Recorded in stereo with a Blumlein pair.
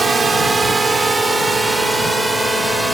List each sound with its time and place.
0.0 s a drone: 15° right; by 2.9 s 5° right